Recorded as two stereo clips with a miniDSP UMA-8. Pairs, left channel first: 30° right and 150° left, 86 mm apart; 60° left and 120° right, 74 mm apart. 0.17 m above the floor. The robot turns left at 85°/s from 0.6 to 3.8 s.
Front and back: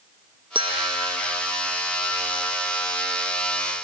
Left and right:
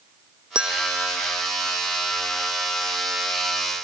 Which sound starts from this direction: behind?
A bell, at 0.6 s.